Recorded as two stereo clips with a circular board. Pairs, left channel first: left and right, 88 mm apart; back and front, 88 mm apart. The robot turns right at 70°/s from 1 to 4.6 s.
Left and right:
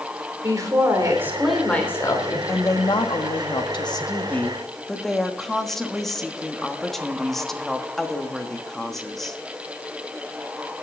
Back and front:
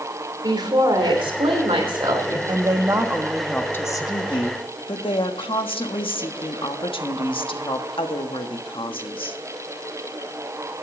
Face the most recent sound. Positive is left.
turn(degrees=175)